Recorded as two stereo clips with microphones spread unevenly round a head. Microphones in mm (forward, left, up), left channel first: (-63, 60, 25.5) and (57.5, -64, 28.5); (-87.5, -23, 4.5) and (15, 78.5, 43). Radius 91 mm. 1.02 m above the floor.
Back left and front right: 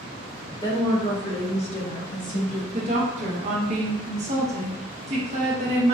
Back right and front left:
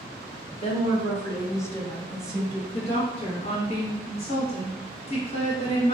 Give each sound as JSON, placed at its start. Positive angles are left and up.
{"t": 0.6, "sound": "a woman speaking", "azimuth_deg": -160, "distance_m": 1.3}
{"t": 2.7, "sound": "a woman speaking", "azimuth_deg": -95, "distance_m": 1.2}